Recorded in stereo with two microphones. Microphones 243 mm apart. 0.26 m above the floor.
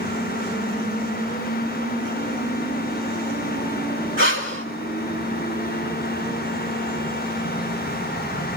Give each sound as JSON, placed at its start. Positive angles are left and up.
{"t": 4.2, "sound": "breathing", "side_deg": -55, "distance_m": 2.5}